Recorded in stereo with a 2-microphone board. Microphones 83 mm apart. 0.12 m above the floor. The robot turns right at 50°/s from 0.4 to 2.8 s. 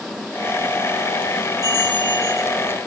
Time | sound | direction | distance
1.6 | a bell | 140° left | 6.5 m